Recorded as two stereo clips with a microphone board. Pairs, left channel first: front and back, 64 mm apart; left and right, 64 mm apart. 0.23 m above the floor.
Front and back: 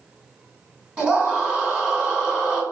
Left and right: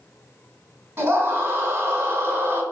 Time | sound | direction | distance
1.0 | a scream | 120° right | 2 m